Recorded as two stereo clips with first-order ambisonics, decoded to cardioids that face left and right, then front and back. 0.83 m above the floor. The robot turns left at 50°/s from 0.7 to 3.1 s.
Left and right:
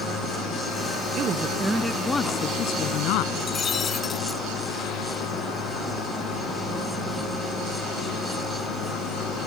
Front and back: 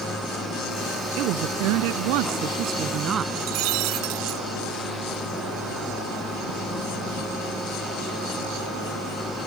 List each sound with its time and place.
1.2 s a woman speaking: 145° right; by 3.2 s 120° left
3.4 s breaking glass: 160° left